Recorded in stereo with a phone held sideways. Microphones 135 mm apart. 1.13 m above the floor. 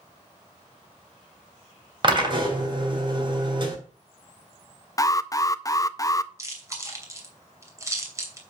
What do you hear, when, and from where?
2.0 s a drill: 35° right (ahead or behind), 2.5 m
5.0 s an alarm: 25° left (ahead or behind), 0.5 m
6.4 s chewing: 20° right (ahead or behind), 3 m